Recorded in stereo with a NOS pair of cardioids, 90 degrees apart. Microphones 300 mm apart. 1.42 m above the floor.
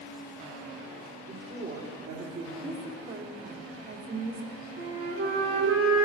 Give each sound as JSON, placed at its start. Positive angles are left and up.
{"t": 1.3, "sound": "a woman speaking", "azimuth_deg": -45, "distance_m": 3.0}
{"t": 2.6, "sound": "a woman speaking", "azimuth_deg": -35, "distance_m": 2.0}
{"t": 4.8, "sound": "a flute", "azimuth_deg": -50, "distance_m": 1.9}